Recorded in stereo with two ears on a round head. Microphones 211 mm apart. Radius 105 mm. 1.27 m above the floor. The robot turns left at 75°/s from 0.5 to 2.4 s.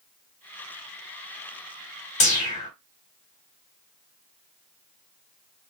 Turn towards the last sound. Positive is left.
turn(degrees=30)  # may be behind; listen again after turning